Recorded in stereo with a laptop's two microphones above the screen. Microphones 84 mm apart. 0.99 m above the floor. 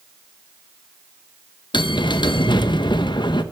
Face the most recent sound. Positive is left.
turn(degrees=65)  # may be behind; listen again after turning